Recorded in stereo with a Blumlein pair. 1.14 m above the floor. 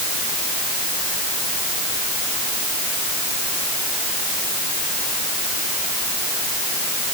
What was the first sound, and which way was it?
Only background noise.